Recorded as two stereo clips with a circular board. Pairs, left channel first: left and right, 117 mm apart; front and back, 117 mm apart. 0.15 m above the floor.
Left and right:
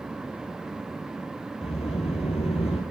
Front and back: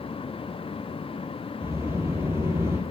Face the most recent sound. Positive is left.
turn(degrees=110)